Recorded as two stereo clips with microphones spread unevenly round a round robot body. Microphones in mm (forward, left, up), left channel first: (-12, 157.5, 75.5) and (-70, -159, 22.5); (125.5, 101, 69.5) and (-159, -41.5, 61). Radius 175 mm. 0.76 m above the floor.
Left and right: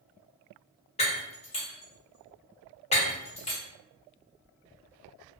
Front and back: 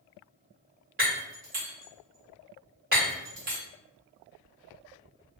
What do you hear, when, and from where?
1.0 s breaking glass: 150° left, 1.3 m